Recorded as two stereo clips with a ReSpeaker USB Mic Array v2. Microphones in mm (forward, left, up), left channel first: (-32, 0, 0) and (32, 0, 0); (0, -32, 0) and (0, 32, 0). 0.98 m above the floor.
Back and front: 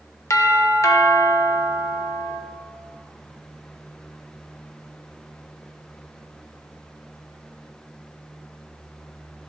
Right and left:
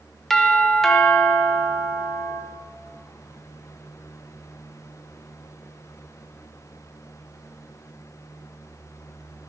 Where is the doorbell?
175° right, 1.0 m.